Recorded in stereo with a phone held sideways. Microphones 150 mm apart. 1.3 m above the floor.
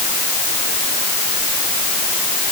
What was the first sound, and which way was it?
Only background noise.